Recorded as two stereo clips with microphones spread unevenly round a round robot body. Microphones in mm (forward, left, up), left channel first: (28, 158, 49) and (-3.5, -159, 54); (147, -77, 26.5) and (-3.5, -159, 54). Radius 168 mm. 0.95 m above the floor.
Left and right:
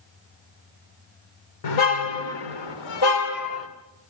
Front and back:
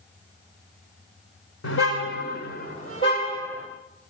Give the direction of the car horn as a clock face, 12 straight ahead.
10 o'clock.